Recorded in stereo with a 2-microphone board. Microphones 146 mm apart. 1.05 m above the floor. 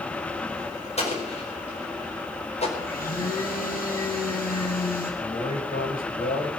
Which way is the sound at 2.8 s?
85° left.